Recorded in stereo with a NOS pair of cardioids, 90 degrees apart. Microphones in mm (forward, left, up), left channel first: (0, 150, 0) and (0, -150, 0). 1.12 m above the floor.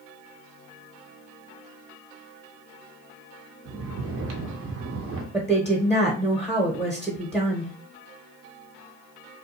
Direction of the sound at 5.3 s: 10° right.